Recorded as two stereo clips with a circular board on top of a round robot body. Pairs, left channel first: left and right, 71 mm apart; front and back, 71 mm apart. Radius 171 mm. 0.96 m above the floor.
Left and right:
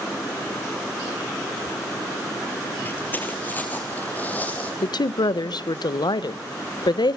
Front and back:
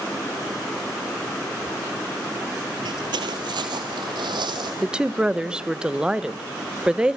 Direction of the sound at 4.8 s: 100° left.